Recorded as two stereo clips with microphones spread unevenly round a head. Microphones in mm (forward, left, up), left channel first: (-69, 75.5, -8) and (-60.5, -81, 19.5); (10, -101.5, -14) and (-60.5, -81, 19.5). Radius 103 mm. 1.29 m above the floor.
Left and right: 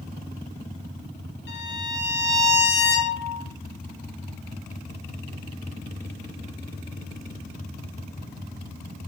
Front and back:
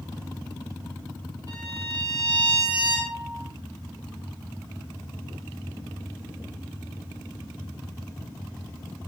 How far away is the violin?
About 4.5 m.